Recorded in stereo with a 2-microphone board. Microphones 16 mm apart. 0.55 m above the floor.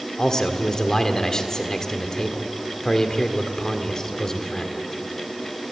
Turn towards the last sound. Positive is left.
turn(degrees=35)  # may be behind; listen again after turning